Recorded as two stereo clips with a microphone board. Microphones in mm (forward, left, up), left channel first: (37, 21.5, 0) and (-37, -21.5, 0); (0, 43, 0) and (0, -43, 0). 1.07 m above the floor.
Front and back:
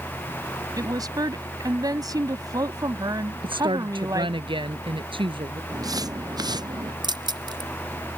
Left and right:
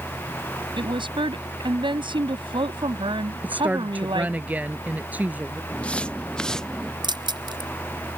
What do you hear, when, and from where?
0.8 s a woman speaking: 105° right
3.4 s a woman speaking: 160° right
5.7 s footsteps: 165° left; by 6.9 s 175° left
7.0 s keys jangling: 120° right